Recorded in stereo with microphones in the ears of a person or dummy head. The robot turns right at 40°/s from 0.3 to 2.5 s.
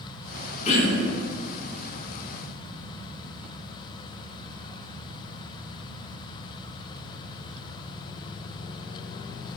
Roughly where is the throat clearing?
Left.